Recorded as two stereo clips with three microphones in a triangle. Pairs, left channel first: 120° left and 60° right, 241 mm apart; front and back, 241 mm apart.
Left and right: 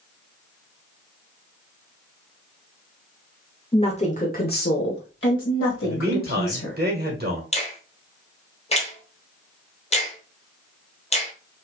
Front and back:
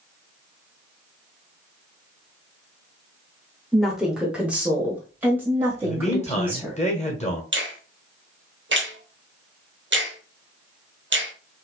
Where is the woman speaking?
90° left, 0.9 m; by 6.8 s 100° left, 2.5 m.